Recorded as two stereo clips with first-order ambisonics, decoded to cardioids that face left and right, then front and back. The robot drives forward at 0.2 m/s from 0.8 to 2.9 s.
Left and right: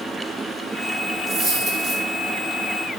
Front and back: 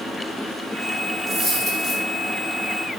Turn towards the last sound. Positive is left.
turn(degrees=-135)